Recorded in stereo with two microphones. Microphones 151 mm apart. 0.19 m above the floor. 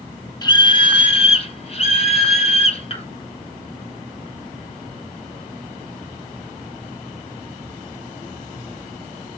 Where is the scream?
30° left (ahead or behind), 1.1 m; by 3.0 s 40° left (ahead or behind), 2.0 m.